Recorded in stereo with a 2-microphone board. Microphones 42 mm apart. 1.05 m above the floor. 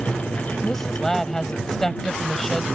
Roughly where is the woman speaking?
Centre.